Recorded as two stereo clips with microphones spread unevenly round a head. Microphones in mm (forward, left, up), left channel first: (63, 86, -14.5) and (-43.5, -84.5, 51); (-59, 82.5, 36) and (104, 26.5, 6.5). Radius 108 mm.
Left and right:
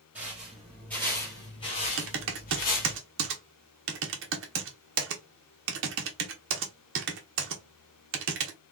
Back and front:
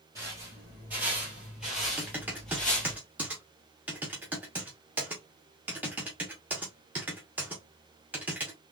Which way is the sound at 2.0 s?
105° right.